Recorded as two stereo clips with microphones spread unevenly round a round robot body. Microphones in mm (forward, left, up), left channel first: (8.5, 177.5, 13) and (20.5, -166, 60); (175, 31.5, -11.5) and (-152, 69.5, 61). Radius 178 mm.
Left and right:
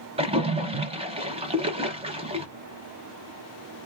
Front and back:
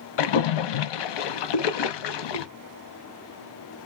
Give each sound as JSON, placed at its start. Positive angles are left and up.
{"t": 0.2, "sound": "a splash", "azimuth_deg": -15, "distance_m": 0.6}